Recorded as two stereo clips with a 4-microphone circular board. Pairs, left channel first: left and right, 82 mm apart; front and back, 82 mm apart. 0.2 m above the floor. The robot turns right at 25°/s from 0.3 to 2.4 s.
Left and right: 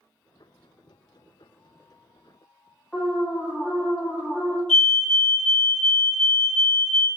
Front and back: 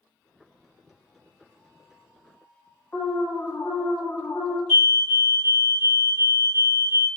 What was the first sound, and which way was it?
An alarm, 20° left.